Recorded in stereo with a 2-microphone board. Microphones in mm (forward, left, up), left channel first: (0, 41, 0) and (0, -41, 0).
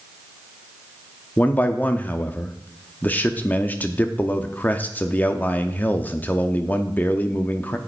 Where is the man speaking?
20° left (ahead or behind), 0.6 m.